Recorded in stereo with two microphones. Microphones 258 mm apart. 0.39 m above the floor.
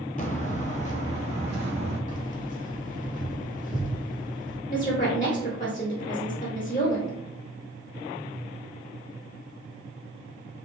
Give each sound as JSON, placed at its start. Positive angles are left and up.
{"t": 0.2, "sound": "footsteps", "side_deg": 30, "distance_m": 0.6}
{"t": 2.1, "sound": "keys jangling", "side_deg": 30, "distance_m": 0.9}
{"t": 4.7, "sound": "a woman speaking", "side_deg": 30, "distance_m": 0.9}